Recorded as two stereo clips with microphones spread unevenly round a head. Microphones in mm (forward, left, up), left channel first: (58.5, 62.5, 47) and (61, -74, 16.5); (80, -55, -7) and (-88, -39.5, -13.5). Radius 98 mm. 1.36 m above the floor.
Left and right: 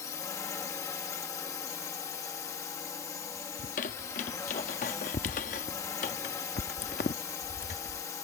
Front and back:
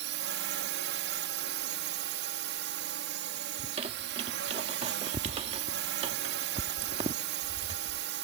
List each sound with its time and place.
0.0 s a drone: 170° left
3.6 s a squeak: 115° left